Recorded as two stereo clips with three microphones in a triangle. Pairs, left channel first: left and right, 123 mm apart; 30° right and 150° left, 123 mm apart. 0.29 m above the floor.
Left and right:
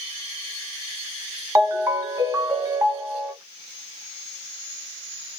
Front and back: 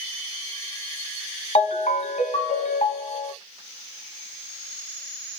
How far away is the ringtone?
About 1.4 m.